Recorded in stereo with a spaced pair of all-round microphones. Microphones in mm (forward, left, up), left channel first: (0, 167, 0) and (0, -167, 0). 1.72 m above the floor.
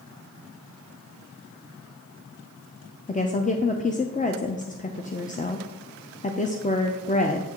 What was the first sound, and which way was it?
A woman speaking, 25° left (ahead or behind).